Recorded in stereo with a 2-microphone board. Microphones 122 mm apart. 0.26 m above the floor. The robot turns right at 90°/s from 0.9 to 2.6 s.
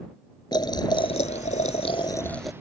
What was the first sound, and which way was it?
Boiling, 40° left.